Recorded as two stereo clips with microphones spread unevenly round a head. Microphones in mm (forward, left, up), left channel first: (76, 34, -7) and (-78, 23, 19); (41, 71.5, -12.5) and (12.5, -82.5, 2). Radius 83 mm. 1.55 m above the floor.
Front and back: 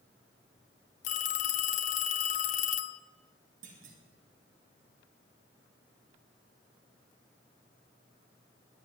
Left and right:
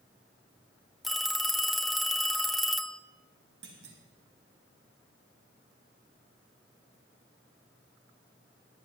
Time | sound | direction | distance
1.0 | a phone ringing | 20° right | 0.5 m
3.6 | a clunk | 130° right | 2.5 m